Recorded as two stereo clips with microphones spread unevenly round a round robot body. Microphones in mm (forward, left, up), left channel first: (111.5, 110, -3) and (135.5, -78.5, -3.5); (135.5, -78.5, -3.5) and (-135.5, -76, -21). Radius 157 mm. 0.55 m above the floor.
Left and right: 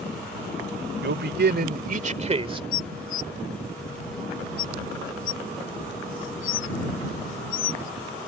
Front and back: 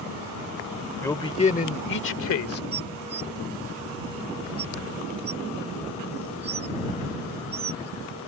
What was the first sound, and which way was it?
A man speaking, 80° right.